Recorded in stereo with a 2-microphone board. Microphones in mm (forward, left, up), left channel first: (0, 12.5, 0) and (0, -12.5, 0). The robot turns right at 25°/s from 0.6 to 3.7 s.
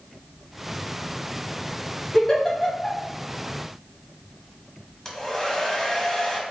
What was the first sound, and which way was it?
A giggle, 25° left (ahead or behind).